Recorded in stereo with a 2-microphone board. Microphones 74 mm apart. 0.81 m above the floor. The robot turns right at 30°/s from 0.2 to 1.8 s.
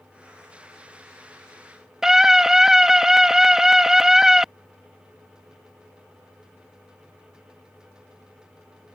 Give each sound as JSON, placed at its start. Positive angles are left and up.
{"t": 2.0, "sound": "a scream", "side_deg": -5}